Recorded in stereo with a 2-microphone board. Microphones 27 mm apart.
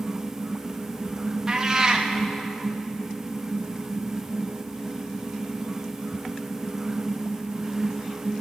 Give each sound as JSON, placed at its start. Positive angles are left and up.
{"t": 1.5, "sound": "a cat meowing", "side_deg": -20, "distance_m": 3.5}